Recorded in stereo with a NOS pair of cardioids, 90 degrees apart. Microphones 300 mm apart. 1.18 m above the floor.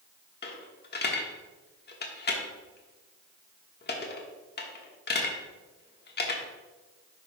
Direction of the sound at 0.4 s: 35° left.